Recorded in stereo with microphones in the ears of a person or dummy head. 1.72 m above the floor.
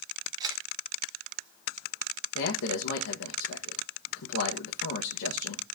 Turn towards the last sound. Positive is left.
turn(degrees=55)  # may be behind; listen again after turning